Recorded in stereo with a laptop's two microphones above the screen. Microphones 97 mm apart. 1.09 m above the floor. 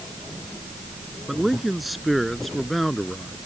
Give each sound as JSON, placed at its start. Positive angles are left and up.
{"t": 1.3, "sound": "a man speaking", "side_deg": 0}